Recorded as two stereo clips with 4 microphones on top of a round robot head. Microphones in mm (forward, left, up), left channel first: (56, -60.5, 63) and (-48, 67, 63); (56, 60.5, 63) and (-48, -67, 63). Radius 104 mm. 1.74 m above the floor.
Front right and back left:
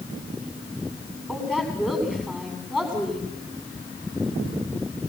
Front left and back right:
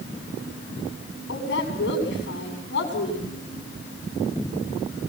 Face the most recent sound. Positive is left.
turn(degrees=35)